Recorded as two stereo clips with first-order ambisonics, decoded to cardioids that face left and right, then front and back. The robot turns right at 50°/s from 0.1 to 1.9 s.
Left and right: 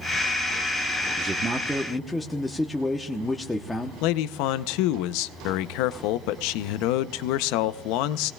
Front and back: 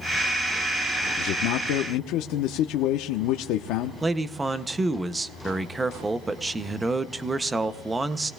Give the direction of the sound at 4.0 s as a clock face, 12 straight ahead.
9 o'clock.